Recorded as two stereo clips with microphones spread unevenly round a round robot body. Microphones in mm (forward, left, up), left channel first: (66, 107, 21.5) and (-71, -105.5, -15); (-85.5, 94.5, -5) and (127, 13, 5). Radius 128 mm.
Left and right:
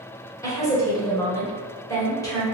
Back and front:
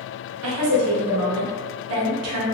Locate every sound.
0.4 s a woman speaking: 25° right, 1.0 m